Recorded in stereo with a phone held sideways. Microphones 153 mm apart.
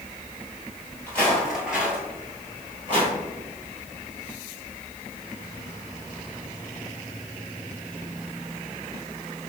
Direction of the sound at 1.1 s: 10° left (ahead or behind).